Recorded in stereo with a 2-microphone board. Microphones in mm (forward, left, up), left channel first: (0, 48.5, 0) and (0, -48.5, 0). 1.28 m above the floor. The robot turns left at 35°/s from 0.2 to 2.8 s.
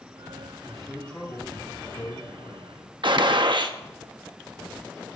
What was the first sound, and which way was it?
A man speaking, 175° right.